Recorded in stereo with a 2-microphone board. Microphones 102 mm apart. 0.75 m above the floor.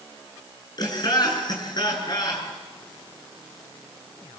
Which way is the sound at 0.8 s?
40° left (ahead or behind).